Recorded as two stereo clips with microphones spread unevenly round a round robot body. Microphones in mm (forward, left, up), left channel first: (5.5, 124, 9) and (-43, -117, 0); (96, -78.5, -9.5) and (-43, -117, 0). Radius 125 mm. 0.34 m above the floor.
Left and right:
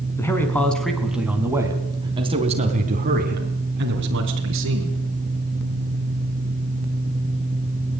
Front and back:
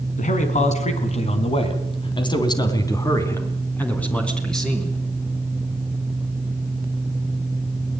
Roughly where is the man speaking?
Ahead.